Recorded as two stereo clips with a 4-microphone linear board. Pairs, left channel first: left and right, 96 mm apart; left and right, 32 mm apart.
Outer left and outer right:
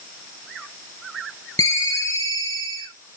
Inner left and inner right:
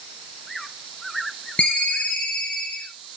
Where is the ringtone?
35° left (ahead or behind), 4 m.